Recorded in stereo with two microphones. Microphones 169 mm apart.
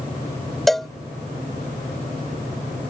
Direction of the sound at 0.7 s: Centre (ahead or behind).